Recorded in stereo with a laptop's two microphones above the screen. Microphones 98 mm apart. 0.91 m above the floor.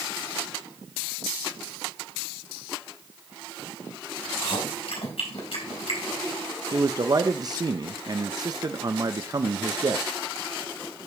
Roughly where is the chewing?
Left.